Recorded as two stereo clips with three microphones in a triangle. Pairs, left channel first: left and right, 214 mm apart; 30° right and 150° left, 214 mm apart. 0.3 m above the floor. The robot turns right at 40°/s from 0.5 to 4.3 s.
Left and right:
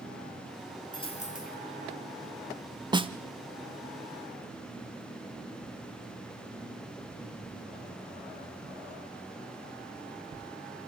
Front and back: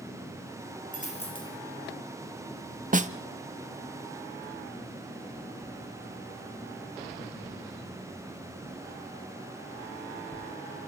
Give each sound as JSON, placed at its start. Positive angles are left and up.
{"t": 0.9, "sound": "a dropped coin", "azimuth_deg": 20, "distance_m": 2.5}
{"t": 2.9, "sound": "a snare drum", "azimuth_deg": -155, "distance_m": 0.7}